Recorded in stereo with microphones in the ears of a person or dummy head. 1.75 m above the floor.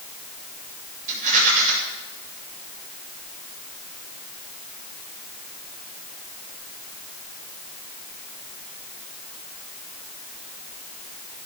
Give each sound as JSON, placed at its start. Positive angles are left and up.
{"t": 1.1, "sound": "a rattle", "side_deg": -35, "distance_m": 8.5}